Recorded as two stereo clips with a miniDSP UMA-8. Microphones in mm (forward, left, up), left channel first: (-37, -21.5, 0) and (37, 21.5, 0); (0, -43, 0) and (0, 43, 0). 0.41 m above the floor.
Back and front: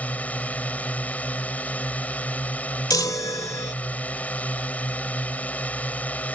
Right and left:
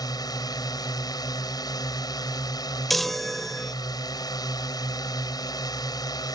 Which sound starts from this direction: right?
A drone, at 0.0 s.